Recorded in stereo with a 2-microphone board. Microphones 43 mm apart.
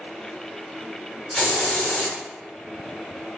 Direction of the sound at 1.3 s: 5° left (ahead or behind).